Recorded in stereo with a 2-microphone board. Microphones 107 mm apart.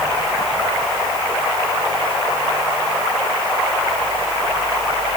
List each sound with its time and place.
Only background noise.